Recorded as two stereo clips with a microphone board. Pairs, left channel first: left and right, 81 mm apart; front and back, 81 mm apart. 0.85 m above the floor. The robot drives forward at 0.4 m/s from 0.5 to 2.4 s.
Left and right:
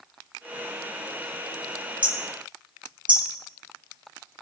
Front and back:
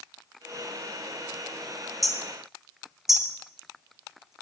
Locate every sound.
2.0 s hammering: 90° right, 1.9 m; by 4.3 s 95° right, 1.9 m